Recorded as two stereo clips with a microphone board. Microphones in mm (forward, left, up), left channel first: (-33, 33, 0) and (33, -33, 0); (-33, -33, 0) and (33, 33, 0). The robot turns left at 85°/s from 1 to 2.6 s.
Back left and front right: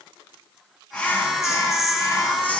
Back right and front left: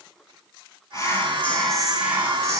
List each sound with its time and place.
0.9 s whispering: 160° right, 1.2 m; by 2.6 s 65° left, 1.2 m